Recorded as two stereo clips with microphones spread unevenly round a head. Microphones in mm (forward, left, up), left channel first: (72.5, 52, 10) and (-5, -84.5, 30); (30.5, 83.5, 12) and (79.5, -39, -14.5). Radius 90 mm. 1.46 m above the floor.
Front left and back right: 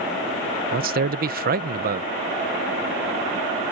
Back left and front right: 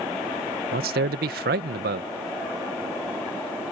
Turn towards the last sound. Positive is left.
turn(degrees=-90)